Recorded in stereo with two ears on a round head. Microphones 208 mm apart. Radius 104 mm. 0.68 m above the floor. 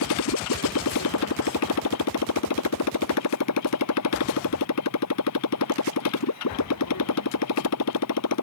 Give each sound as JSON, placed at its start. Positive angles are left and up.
{"t": 0.0, "sound": "a motorcycle", "side_deg": 80}